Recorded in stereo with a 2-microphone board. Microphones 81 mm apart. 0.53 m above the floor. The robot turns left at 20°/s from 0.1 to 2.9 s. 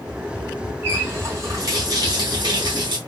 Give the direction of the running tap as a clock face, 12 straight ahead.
1 o'clock.